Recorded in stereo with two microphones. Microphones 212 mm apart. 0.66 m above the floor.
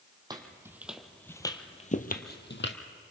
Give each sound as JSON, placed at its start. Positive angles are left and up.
{"t": 0.3, "sound": "footsteps", "side_deg": -20, "distance_m": 1.6}